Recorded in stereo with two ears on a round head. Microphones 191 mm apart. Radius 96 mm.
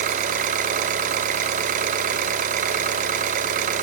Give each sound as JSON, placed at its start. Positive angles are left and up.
{"t": 0.0, "sound": "an engine running", "side_deg": -40, "distance_m": 1.8}